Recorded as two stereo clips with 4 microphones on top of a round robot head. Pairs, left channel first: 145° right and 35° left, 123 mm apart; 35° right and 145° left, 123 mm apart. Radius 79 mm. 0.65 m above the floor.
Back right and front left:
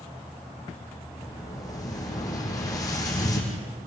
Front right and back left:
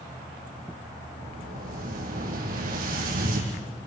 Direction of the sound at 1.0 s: 155° left.